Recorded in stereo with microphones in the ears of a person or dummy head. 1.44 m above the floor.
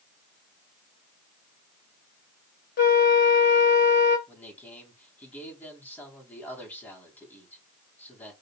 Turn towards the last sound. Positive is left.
turn(degrees=10)  # may be behind; listen again after turning